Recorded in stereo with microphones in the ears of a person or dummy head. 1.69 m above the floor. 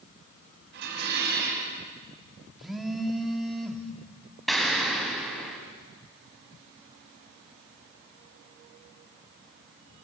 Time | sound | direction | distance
0.7 | dishes clattering | 65° right (ahead or behind) | 8.5 m
2.6 | a phone buzzing | 5° right (ahead or behind) | 2.0 m
4.5 | an explosion | centre (ahead or behind) | 4 m